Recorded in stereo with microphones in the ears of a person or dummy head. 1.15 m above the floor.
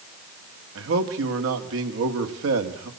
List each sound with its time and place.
0.8 s a man speaking: 75° right (ahead or behind), 2 m